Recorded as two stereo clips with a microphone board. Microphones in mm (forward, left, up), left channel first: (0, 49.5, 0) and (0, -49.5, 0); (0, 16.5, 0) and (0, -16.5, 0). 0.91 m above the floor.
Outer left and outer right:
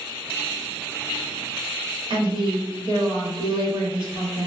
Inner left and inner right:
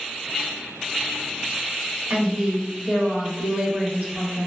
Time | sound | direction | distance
2.1 | a woman speaking | 55° right (ahead or behind) | 1.3 m